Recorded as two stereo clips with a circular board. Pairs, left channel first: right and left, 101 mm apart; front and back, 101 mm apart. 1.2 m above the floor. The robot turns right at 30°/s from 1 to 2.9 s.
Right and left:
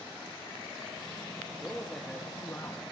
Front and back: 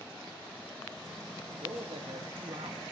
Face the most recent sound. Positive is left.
turn(degrees=-145)